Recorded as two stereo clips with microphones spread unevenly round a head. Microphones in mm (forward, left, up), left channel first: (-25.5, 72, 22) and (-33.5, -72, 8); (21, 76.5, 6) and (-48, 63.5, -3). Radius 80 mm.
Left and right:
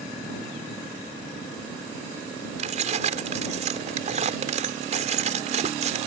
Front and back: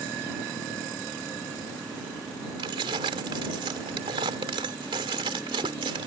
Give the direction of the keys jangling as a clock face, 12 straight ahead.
5 o'clock.